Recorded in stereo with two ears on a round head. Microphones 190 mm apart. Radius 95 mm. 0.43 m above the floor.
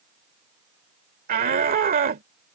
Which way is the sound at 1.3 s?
45° right (ahead or behind).